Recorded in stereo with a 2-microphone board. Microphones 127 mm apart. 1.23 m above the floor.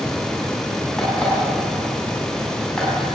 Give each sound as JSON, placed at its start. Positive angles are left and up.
{"t": 1.0, "sound": "an alarm clock", "side_deg": 5, "distance_m": 6.5}